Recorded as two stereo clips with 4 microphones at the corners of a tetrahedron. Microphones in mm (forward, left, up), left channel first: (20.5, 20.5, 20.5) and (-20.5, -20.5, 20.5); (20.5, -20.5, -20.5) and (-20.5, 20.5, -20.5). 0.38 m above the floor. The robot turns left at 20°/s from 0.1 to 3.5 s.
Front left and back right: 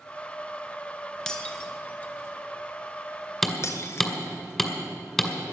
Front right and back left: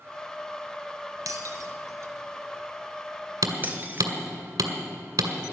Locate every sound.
1.3 s breaking glass: 125° left, 1.3 m; by 4.1 s 80° left, 1.3 m
3.4 s hammering: 135° left, 1.9 m; by 5.3 s 130° left, 1.9 m